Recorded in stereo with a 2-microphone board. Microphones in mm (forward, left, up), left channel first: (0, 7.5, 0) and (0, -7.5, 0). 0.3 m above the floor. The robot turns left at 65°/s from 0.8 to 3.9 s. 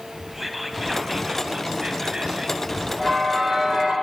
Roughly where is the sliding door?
I don't hear a sliding door.